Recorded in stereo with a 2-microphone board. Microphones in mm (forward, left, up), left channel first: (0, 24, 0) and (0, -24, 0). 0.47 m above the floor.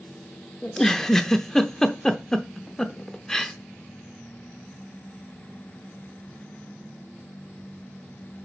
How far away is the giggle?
About 0.6 m.